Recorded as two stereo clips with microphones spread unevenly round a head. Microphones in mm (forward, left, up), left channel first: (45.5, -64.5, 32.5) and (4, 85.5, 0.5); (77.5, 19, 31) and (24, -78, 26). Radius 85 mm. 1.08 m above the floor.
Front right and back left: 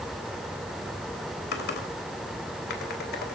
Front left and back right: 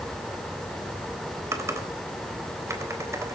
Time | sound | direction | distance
1.5 | typing on a keyboard | 55° right | 3.5 m